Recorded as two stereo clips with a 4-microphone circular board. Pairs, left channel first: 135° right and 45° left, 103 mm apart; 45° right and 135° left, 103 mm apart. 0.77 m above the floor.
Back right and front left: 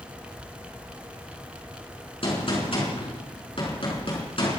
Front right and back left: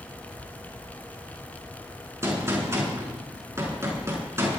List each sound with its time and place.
2.2 s a gunshot: 165° right, 6 m